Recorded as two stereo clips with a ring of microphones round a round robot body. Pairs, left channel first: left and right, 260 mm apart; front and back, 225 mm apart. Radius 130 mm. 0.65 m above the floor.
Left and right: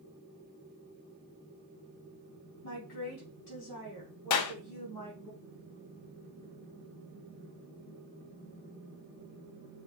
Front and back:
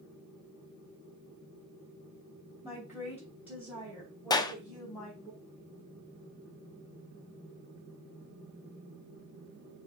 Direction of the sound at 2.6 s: 100° left.